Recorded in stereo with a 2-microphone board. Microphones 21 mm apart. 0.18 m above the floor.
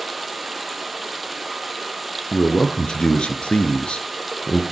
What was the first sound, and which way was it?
Running water, centre (ahead or behind).